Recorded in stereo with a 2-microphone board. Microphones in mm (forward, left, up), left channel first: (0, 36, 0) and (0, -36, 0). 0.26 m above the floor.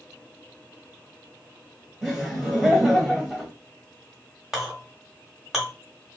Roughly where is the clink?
Centre.